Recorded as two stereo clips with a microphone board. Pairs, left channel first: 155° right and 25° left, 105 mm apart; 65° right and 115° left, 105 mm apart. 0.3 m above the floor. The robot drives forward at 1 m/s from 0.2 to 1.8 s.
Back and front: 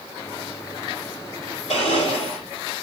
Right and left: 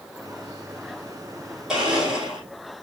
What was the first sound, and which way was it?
A blender, 165° right.